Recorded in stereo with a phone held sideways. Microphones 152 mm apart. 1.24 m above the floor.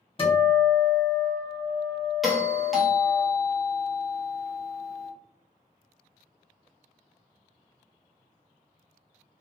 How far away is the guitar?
About 1.1 m.